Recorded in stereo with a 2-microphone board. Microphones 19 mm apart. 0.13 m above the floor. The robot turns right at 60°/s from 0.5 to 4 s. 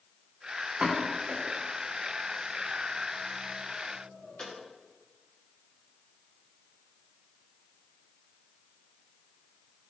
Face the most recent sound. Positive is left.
turn(degrees=75)  # may be behind; listen again after turning